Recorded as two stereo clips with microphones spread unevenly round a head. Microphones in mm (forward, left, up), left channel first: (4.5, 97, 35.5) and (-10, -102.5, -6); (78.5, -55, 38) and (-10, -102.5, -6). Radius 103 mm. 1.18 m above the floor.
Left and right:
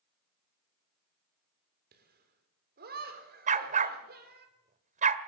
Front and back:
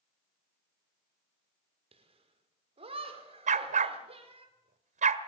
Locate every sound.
1.9 s laughter: 135° right, 4.5 m
3.5 s a dog barking: 150° right, 1.3 m